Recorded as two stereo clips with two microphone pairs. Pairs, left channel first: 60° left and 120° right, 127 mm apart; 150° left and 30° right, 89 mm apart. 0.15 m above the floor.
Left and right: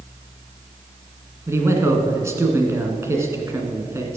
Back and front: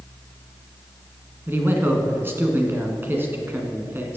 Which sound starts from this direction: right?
A man speaking, at 1.5 s.